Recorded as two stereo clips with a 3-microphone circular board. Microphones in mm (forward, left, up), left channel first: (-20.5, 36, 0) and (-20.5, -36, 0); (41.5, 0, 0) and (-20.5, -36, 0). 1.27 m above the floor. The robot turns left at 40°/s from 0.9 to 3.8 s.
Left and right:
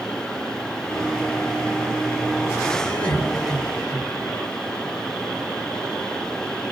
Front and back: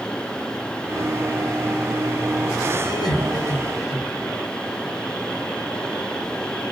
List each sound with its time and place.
2.8 s laughter: 25° left, 6 m; by 4.3 s 15° right, 6 m